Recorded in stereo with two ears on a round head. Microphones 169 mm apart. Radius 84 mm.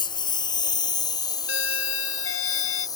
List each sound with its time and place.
0.0 s a lawn mower: 25° left (ahead or behind); by 3.0 s 20° left (ahead or behind)
1.5 s a doorbell: 80° left